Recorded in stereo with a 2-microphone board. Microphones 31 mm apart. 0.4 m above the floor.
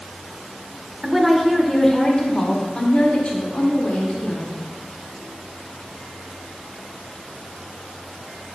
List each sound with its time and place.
1.0 s a woman speaking: 15° right (ahead or behind), 0.8 m; by 4.7 s 45° left (ahead or behind), 2 m